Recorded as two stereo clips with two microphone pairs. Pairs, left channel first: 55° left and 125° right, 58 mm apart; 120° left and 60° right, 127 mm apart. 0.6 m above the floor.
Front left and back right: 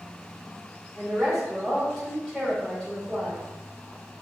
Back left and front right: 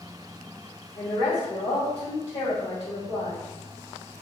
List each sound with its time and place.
0.9 s a woman speaking: 160° left, 2.0 m; by 3.5 s 115° left, 2 m